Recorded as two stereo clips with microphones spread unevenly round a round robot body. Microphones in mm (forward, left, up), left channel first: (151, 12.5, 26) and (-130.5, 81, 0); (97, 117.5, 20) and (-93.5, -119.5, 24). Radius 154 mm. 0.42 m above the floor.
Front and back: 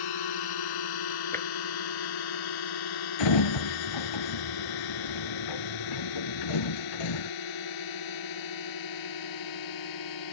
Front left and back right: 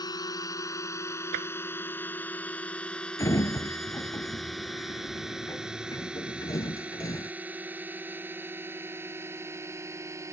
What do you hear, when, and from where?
0.0 s a drone: 25° right; by 10.3 s 45° right
1.3 s tapping: 95° right
3.2 s a sliding door: 30° right